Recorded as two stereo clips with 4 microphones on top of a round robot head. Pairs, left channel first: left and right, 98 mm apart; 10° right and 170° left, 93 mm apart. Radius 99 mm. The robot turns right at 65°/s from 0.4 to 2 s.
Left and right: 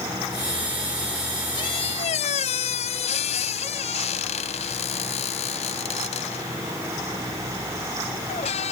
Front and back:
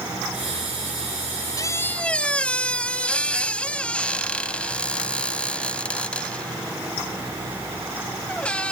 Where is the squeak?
40° left; by 8.7 s 65° left.